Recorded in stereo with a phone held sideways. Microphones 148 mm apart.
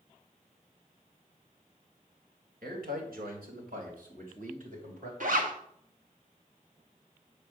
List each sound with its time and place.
2.6 s a man speaking: 80° right, 3 m; by 5.1 s 60° right (ahead or behind), 3.5 m
5.2 s a zipper: 65° right (ahead or behind), 1.3 m